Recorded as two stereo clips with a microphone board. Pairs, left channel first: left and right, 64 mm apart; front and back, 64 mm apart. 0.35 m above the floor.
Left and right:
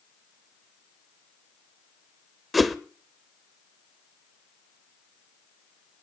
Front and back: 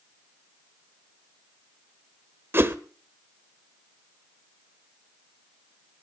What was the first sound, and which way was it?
A whoosh, straight behind.